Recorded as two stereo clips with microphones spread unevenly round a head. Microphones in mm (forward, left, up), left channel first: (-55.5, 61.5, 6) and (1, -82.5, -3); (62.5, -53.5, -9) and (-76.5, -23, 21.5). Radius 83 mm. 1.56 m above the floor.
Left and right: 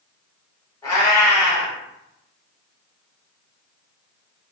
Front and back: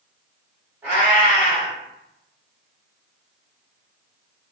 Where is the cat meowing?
145° left, 1.3 m.